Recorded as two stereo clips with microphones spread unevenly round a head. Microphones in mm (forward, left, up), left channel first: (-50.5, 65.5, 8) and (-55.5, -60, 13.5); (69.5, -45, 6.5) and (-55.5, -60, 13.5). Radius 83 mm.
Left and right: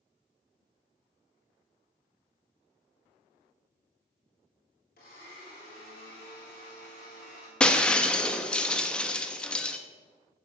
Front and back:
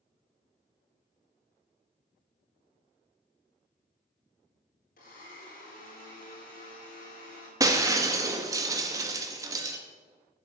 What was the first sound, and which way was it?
A blender, 50° left.